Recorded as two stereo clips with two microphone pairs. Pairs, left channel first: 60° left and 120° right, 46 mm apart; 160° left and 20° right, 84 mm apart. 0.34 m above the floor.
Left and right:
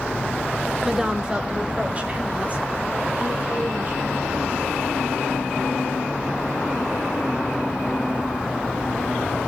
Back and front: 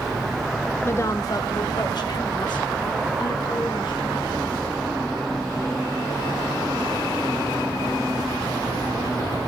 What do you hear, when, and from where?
0.8 s a woman speaking: 160° left, 1.0 m; by 4.7 s 175° right, 5.5 m